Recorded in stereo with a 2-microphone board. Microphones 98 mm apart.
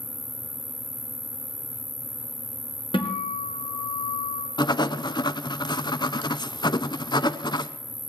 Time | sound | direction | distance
0.0 | an insect | 40° right (ahead or behind) | 1.3 m
2.9 | a guitar | 55° left (ahead or behind) | 2.5 m
4.6 | writing | 45° left (ahead or behind) | 0.6 m